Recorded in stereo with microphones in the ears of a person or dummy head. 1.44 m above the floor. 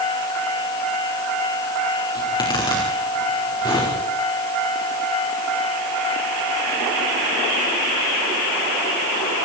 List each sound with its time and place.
2.1 s a zipper: 30° left (ahead or behind), 5.5 m